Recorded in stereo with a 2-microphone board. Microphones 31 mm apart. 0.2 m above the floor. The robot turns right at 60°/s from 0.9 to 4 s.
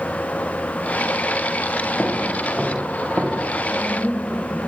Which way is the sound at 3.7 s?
35° left (ahead or behind).